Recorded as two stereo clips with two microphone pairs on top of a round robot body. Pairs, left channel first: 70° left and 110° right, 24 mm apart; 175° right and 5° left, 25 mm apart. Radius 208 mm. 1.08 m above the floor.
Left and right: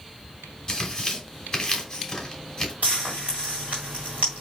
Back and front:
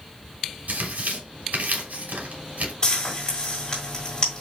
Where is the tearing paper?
5° left, 2.5 m.